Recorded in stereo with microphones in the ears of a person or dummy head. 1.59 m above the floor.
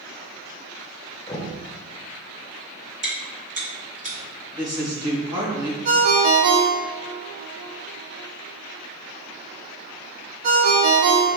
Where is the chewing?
30° right (ahead or behind), 1.8 m.